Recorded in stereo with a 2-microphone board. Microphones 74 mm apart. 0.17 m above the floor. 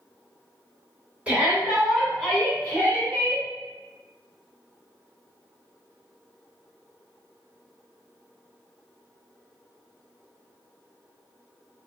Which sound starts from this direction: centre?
A shout, at 1.3 s.